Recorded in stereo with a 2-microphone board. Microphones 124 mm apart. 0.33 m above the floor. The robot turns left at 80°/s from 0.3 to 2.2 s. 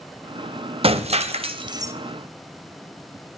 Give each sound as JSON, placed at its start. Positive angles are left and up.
{"t": 0.8, "sound": "breaking glass", "azimuth_deg": -65, "distance_m": 0.6}